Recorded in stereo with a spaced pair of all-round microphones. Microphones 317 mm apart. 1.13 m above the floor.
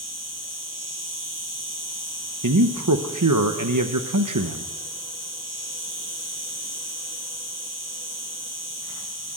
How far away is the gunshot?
I don't hear a gunshot.